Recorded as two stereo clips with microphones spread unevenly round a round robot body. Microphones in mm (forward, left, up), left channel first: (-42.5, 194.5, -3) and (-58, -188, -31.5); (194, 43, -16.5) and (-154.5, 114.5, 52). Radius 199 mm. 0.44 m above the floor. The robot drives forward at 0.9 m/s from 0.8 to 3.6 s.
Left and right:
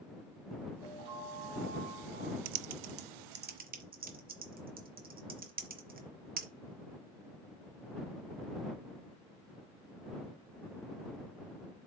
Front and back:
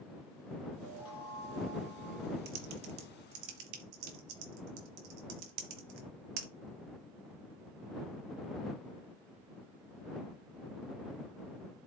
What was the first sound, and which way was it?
A chime, 20° left.